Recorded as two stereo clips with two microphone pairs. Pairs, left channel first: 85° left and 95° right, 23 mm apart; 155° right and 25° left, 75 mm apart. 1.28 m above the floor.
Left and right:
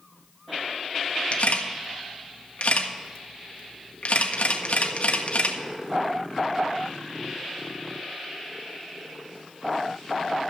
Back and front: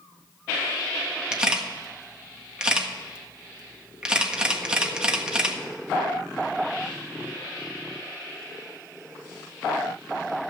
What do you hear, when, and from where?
1.3 s a camera shutter: 105° left, 1.5 m